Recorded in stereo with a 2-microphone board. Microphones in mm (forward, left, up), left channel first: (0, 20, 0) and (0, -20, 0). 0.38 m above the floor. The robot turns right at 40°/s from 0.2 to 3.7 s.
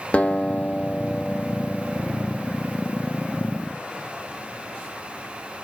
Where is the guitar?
70° left, 0.6 m; by 2.0 s 145° left, 0.6 m.